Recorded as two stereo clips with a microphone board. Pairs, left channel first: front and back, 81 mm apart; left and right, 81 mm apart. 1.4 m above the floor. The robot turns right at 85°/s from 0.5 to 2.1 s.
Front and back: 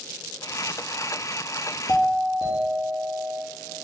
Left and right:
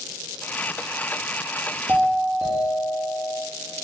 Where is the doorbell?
30° right, 1.1 m; by 3.4 s 10° right, 1.1 m.